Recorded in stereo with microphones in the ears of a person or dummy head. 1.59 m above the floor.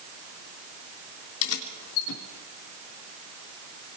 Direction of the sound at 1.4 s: 75° left (ahead or behind).